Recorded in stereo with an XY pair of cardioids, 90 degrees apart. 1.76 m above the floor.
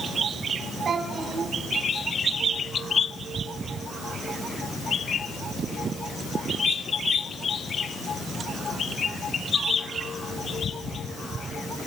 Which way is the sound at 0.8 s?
60° right.